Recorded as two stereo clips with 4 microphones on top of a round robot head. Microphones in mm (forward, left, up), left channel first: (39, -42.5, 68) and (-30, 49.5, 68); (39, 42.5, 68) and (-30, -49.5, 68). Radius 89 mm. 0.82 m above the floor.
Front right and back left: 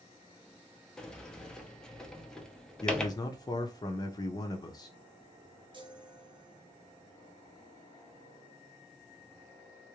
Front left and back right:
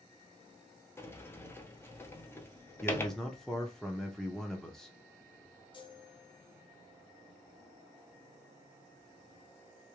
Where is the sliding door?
20° left, 1.0 m.